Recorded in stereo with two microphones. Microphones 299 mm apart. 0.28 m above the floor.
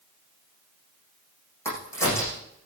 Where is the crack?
10° left (ahead or behind), 7.5 m.